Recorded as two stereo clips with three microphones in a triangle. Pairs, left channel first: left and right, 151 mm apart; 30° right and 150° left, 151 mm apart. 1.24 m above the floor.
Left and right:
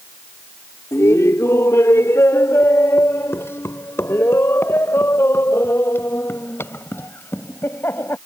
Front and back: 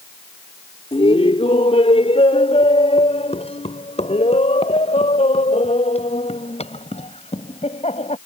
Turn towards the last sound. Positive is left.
turn(degrees=15)